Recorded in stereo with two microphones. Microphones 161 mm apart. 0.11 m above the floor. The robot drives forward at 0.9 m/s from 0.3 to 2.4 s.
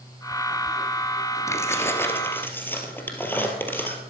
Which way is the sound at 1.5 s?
20° left (ahead or behind).